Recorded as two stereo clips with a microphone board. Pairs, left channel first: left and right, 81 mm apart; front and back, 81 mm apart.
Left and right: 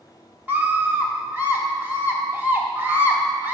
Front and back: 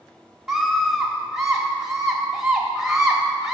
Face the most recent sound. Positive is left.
turn(degrees=-100)